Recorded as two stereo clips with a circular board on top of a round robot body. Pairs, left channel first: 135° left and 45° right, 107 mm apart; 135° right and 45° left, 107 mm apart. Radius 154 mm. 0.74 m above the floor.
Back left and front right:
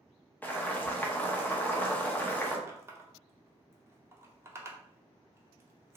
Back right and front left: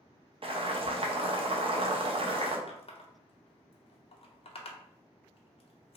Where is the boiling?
60° left, 0.9 m.